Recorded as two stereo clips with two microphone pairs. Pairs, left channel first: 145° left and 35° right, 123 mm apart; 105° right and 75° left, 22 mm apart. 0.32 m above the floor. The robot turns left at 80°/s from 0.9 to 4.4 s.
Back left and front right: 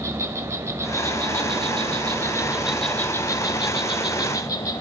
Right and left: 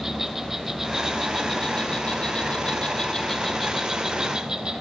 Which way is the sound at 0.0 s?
20° left.